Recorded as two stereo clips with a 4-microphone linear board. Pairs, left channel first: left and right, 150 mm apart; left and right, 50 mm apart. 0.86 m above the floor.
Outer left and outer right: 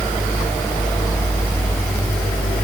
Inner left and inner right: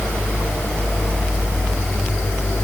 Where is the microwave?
I don't hear a microwave.